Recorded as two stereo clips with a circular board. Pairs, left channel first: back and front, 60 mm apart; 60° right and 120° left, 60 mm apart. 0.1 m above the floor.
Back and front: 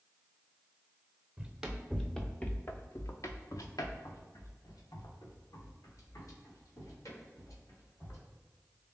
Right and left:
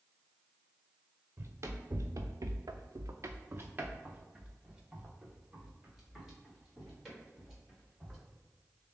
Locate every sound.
1.4 s running footsteps: 75° left, 0.9 m; by 8.2 s 150° right, 3 m